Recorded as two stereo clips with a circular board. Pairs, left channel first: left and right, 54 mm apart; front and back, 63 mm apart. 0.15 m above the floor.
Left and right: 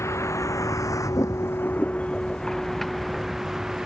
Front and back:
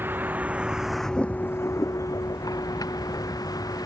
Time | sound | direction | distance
0.0 | a vehicle | 125° left | ?